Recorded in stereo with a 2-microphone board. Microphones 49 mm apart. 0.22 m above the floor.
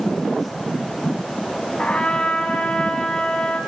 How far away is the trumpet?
About 1.5 m.